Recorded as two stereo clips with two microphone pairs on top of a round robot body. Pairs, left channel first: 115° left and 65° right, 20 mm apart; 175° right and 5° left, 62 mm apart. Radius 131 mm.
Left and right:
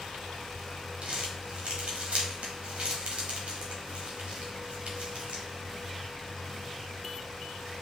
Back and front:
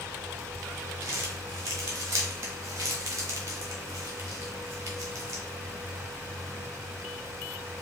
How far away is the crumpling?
About 1.3 m.